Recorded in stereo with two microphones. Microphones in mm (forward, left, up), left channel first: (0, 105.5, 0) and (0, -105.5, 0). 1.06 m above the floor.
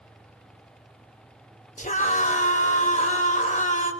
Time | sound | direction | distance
1.8 | a scream | 35° left (ahead or behind) | 4 m